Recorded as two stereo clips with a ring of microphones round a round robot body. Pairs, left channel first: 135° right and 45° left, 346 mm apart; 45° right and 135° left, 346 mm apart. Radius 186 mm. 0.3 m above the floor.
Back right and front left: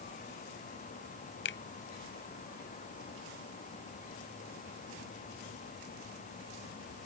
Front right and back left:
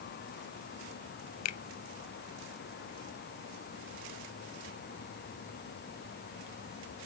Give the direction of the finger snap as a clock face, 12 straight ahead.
3 o'clock.